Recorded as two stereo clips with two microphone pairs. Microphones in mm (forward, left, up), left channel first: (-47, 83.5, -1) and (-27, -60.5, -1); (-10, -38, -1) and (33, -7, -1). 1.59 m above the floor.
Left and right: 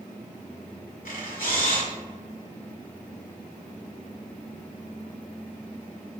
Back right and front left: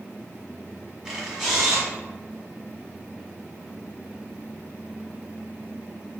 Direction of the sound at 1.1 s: 115° left.